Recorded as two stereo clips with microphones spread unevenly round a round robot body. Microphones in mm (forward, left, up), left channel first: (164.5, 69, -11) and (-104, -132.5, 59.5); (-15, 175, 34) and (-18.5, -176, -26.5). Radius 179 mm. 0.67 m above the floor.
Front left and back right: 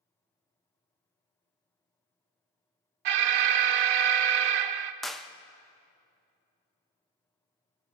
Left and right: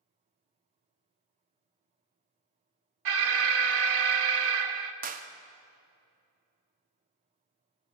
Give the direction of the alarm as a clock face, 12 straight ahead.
4 o'clock.